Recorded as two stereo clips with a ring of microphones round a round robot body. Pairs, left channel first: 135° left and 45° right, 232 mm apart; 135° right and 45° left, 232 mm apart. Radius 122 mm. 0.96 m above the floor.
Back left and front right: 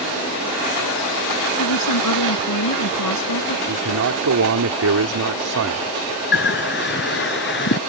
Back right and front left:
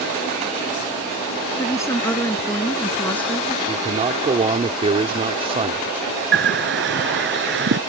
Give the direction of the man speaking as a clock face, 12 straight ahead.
1 o'clock.